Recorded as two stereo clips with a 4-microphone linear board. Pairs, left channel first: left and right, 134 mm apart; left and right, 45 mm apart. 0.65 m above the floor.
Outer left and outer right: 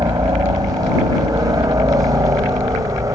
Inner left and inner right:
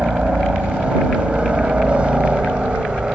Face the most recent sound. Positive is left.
turn(degrees=-25)  # may be behind; listen again after turning